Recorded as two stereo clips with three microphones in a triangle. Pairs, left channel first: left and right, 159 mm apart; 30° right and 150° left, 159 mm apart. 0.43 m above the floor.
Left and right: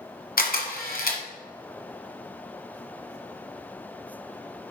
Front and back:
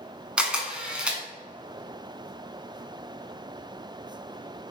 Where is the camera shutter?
65° left, 1.4 m.